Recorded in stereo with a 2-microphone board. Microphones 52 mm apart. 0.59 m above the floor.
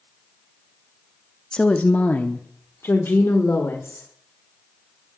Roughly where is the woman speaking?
Centre.